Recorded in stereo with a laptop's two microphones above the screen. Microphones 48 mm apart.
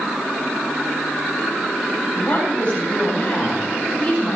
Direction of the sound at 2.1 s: 25° left (ahead or behind).